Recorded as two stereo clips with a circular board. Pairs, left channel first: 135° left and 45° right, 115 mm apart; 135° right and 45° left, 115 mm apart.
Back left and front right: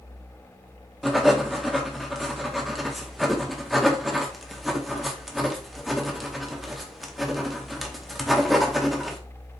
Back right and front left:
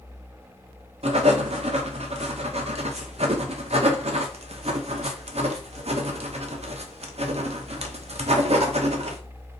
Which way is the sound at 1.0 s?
45° left.